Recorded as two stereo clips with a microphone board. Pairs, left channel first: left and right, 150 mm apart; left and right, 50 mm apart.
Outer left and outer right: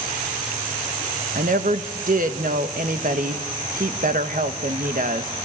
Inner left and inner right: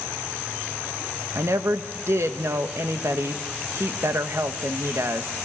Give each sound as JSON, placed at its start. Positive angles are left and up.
{"t": 1.4, "sound": "a woman speaking", "side_deg": -65, "distance_m": 1.3}